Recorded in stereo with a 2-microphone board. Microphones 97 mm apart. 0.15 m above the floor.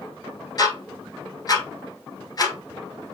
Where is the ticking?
40° left (ahead or behind), 1.4 m.